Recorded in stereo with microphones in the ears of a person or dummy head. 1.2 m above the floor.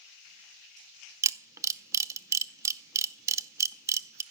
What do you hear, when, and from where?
1.2 s a camera shutter: 20° right (ahead or behind), 0.5 m